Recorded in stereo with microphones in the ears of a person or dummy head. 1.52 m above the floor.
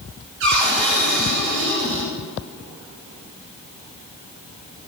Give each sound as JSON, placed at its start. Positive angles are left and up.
{"t": 0.4, "sound": "a cupboard door", "side_deg": -70, "distance_m": 7.0}